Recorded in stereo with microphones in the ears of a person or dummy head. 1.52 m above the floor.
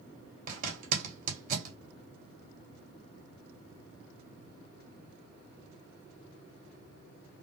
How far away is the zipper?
About 1.8 m.